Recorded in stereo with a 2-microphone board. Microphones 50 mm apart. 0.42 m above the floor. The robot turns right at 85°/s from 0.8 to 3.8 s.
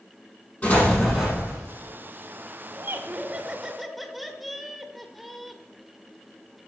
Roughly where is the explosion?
Behind left.